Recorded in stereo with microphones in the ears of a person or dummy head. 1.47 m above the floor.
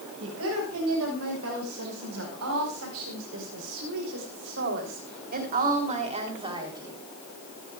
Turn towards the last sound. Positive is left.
turn(degrees=-15)  # may be behind; listen again after turning